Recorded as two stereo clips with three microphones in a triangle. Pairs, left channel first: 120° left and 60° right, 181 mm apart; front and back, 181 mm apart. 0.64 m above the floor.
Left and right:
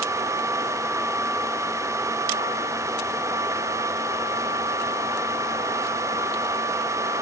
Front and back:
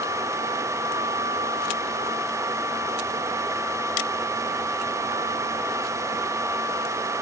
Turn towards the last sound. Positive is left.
No sound to turn to.